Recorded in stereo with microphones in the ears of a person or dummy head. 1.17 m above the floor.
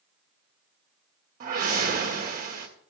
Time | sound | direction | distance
1.4 | a whoosh | 45° right (ahead or behind) | 1.4 m